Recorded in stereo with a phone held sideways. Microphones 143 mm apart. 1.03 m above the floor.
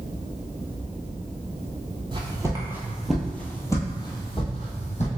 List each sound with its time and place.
2.1 s footsteps: 35° right (ahead or behind), 1.2 m; by 5.1 s 50° left (ahead or behind), 1.6 m